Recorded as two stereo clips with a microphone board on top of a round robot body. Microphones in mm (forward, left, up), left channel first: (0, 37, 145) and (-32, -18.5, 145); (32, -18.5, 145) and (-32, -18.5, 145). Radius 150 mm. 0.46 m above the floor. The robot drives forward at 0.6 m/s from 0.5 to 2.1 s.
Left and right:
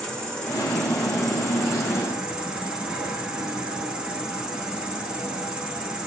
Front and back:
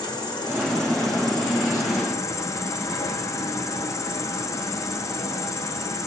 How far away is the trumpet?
I don't hear a trumpet.